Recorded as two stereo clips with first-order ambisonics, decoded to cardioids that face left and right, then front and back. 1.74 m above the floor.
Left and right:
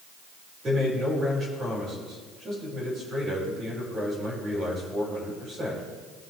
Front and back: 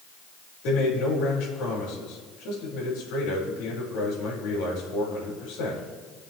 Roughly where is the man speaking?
Ahead.